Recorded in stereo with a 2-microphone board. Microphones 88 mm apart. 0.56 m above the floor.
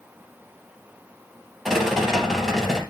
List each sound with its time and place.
1.6 s a rattle: 5° right (ahead or behind), 2.5 m